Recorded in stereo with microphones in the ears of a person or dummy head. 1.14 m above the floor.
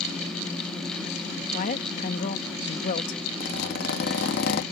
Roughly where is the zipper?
Left.